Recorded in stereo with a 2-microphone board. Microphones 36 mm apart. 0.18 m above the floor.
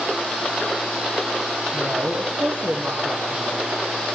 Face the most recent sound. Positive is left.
turn(degrees=-75)  # may be behind; listen again after turning